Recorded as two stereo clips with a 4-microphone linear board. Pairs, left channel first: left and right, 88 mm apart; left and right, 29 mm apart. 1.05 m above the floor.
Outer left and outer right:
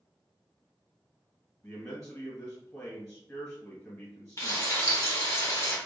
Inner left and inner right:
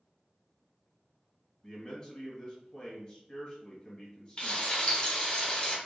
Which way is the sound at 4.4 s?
35° left (ahead or behind).